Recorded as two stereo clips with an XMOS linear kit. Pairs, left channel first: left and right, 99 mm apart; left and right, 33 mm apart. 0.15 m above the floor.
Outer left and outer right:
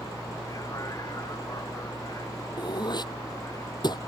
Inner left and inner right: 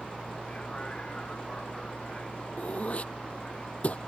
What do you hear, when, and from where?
0.0 s a vehicle: 35° left (ahead or behind)
2.6 s throat clearing: 45° left (ahead or behind)